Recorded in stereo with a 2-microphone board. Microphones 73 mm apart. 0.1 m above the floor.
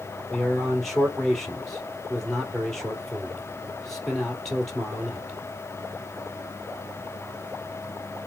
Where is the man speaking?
5° left (ahead or behind), 2 m.